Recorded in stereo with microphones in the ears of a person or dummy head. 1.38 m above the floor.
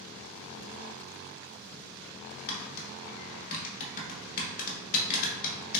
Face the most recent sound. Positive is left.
turn(degrees=45)  # may be behind; listen again after turning